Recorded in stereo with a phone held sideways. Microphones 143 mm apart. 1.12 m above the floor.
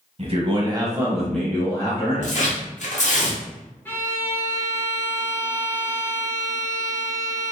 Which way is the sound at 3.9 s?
15° left (ahead or behind).